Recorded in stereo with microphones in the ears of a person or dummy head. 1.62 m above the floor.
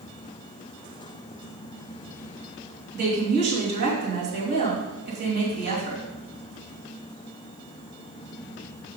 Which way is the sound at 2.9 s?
55° right (ahead or behind).